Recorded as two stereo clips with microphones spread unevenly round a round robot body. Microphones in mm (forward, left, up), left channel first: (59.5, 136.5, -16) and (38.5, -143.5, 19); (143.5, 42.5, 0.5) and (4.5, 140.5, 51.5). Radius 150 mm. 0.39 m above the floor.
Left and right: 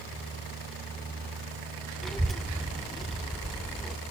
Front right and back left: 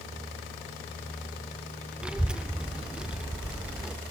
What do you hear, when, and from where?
2.0 s a child speaking: 20° left, 0.5 m